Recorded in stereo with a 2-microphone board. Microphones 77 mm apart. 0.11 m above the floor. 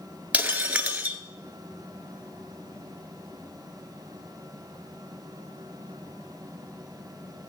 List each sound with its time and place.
0.3 s breaking glass: 20° right (ahead or behind), 1.1 m